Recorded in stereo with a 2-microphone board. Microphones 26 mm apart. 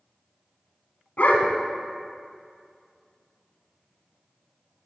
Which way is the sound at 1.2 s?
65° left (ahead or behind).